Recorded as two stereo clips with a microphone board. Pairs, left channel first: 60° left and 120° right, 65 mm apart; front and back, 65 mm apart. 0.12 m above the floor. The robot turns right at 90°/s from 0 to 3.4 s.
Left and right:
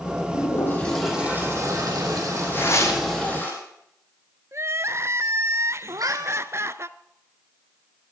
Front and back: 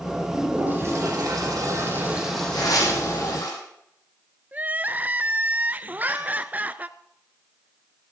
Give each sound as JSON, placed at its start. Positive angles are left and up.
{"t": 0.3, "sound": "a toilet flushing", "azimuth_deg": 85, "distance_m": 6.0}
{"t": 2.5, "sound": "tearing paper", "azimuth_deg": 0, "distance_m": 5.0}
{"t": 4.5, "sound": "crying", "azimuth_deg": -125, "distance_m": 0.6}
{"t": 5.9, "sound": "a cat meowing", "azimuth_deg": -120, "distance_m": 1.4}